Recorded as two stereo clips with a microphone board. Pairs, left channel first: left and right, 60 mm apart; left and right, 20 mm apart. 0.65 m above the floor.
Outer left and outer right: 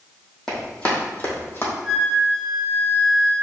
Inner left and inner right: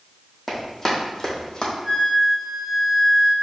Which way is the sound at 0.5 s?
10° left (ahead or behind).